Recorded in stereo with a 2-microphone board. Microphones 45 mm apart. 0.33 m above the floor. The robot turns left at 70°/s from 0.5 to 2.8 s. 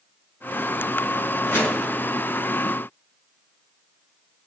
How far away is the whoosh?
About 5.5 m.